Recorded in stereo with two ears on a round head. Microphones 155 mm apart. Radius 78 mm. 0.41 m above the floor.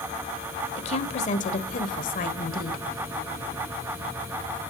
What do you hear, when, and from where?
0.8 s a woman speaking: 40° left (ahead or behind), 1.4 m; by 2.9 s 55° left (ahead or behind), 1.6 m